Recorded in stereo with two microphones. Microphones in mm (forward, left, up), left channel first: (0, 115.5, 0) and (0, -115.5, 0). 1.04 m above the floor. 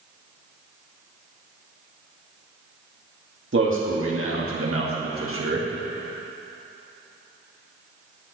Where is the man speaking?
60° right (ahead or behind), 2 m.